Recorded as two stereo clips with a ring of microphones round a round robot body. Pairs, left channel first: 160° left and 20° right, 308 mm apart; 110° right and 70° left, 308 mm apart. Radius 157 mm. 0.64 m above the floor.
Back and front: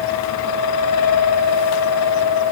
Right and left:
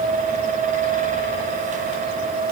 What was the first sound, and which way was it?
Only background noise.